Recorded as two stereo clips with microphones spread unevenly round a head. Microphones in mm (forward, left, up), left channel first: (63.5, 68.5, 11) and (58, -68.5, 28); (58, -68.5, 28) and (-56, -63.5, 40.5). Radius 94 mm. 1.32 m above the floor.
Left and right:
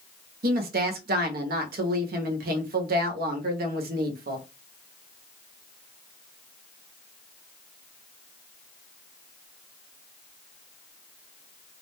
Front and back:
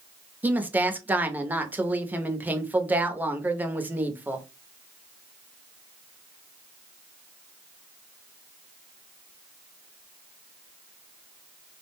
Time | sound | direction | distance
0.4 | a woman speaking | 105° right | 0.7 m